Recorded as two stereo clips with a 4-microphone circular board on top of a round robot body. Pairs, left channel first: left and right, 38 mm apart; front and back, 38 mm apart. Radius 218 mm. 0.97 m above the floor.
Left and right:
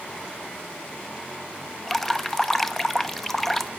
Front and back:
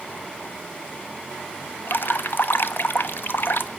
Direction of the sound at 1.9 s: 10° left.